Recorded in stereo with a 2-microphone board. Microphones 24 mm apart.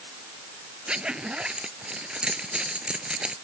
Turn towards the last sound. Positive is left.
turn(degrees=-45)  # may be behind; listen again after turning